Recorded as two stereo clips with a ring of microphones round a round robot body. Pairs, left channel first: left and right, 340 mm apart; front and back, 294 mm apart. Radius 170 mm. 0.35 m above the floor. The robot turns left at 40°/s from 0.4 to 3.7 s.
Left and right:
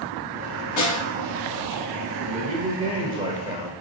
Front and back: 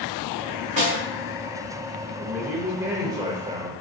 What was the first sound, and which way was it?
A snare drum, 115° left.